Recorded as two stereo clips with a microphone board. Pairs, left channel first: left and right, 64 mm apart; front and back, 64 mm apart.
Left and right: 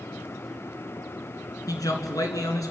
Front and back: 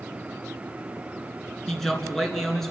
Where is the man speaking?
85° left, 3 m.